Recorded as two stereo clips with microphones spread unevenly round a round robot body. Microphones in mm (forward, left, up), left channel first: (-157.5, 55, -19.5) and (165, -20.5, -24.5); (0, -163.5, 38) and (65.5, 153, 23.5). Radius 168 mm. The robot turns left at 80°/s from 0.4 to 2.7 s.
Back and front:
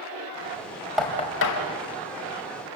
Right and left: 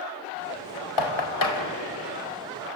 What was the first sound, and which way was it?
Knocking, 105° right.